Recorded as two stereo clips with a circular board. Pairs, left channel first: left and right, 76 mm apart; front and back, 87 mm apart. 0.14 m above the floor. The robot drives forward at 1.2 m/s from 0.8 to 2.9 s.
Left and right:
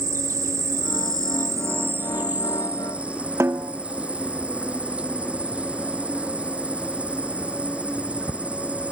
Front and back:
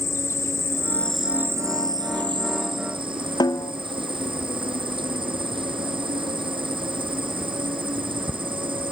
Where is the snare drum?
35° right.